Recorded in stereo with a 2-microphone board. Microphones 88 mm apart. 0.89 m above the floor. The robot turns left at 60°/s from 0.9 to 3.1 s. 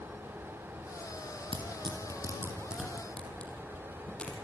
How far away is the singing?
I don't hear singing.